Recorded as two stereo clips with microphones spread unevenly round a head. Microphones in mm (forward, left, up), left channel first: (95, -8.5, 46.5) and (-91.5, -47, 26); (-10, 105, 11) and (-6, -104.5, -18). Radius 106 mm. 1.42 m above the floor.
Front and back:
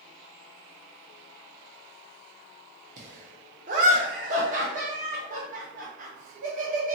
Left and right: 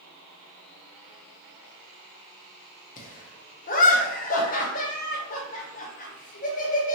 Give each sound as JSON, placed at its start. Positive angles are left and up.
{"t": 3.0, "sound": "laughter", "azimuth_deg": 135, "distance_m": 0.6}